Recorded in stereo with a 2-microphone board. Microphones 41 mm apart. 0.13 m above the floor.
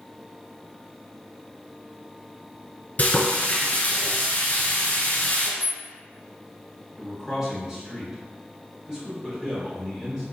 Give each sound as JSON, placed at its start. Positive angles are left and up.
{"t": 3.0, "sound": "frying", "side_deg": 40, "distance_m": 1.5}
{"t": 5.6, "sound": "a rattle", "side_deg": -50, "distance_m": 2.0}
{"t": 7.0, "sound": "a man speaking", "side_deg": -15, "distance_m": 1.7}